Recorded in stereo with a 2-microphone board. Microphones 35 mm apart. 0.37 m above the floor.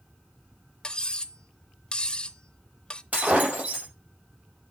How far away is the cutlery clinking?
About 0.5 m.